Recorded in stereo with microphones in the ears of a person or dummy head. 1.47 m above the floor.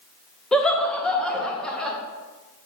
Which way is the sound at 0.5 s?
5° left (ahead or behind).